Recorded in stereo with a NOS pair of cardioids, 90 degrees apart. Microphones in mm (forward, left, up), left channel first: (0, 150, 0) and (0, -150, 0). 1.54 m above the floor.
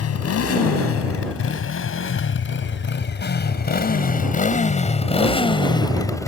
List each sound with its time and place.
0.0 s a motorcycle: 55° left; by 6.3 s 10° left